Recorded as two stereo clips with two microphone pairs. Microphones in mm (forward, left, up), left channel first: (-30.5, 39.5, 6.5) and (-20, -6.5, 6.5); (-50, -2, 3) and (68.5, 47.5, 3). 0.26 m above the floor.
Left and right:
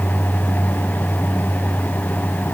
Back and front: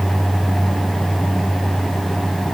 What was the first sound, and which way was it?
Only background noise.